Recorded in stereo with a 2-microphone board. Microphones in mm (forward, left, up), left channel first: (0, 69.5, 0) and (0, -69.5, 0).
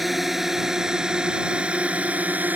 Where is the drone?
Centre (ahead or behind); by 2.6 s 10° right (ahead or behind).